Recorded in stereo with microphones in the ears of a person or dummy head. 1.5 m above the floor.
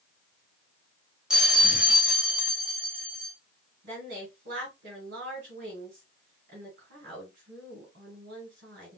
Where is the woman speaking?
65° right (ahead or behind), 4 m.